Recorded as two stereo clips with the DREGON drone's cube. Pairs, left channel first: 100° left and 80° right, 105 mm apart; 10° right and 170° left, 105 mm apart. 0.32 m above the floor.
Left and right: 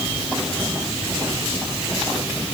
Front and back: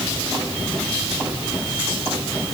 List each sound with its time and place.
Only background noise.